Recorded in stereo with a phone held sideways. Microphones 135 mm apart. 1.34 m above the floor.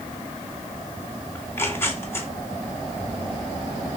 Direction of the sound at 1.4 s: 15° left (ahead or behind).